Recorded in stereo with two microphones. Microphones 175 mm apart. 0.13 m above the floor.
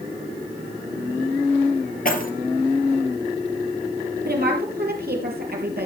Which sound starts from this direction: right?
A woman speaking, at 4.2 s.